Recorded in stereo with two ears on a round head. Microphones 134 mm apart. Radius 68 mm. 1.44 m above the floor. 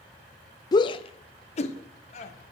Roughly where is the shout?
Left.